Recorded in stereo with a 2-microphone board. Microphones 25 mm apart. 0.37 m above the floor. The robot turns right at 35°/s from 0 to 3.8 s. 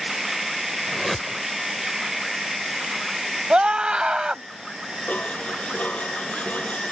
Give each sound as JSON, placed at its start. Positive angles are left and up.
{"t": 0.9, "sound": "a whoosh", "side_deg": 5}
{"t": 3.5, "sound": "a scream", "side_deg": -45}
{"t": 5.1, "sound": "dishes clattering", "side_deg": 70}